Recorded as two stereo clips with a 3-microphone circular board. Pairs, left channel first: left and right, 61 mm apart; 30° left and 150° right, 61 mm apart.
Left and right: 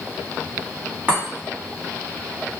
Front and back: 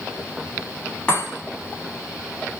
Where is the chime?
35° right, 1.6 m.